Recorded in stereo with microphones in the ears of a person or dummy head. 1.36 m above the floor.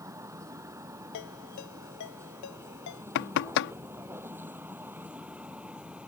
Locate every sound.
0.0 s a vehicle: 20° right (ahead or behind); by 6.1 s 5° right (ahead or behind)
1.1 s a ringtone: 70° left (ahead or behind)
3.1 s knocking: 70° left (ahead or behind)